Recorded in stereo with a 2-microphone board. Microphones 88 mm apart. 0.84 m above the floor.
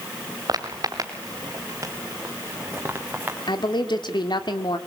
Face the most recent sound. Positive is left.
turn(degrees=60)  # may be behind; listen again after turning